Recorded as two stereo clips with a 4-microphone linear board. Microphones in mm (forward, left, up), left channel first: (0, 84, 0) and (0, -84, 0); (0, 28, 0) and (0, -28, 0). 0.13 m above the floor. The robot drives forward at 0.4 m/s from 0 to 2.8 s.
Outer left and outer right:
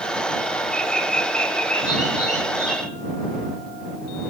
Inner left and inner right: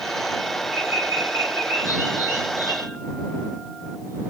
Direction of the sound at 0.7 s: 50° right (ahead or behind).